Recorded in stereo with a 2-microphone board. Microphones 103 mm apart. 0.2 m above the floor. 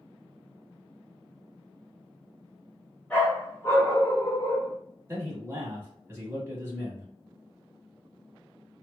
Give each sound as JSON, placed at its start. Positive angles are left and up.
{"t": 3.1, "sound": "a dog barking", "side_deg": 10, "distance_m": 0.9}
{"t": 5.1, "sound": "a man speaking", "side_deg": -25, "distance_m": 1.1}